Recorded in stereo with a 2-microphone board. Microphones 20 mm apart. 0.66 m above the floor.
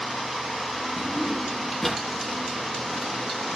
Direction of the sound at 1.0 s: 10° left (ahead or behind).